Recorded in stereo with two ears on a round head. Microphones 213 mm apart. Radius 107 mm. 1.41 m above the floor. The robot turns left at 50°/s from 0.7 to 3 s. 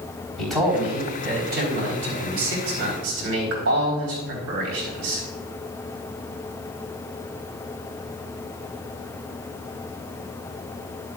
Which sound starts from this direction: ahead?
A man speaking, at 0.4 s.